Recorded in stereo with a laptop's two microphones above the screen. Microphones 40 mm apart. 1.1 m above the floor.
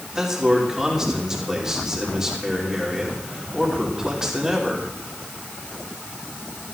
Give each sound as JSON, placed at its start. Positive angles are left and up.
{"t": 0.1, "sound": "a man speaking", "side_deg": -15, "distance_m": 3.0}